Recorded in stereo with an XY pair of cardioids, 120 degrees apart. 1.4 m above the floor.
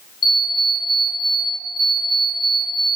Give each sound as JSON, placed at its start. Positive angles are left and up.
{"t": 0.2, "sound": "an alarm clock", "azimuth_deg": 45, "distance_m": 1.5}